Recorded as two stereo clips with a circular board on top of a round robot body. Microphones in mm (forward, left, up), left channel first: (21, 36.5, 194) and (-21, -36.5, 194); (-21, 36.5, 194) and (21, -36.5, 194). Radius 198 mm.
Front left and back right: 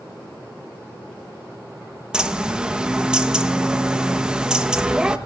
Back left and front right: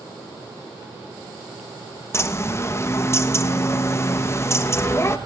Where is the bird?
165° left, 1.3 m.